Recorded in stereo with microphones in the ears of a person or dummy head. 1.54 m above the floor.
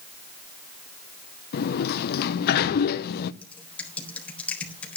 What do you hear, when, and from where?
1.5 s a sliding door: 60° left (ahead or behind), 0.8 m
3.4 s typing on a keyboard: 10° left (ahead or behind), 3.5 m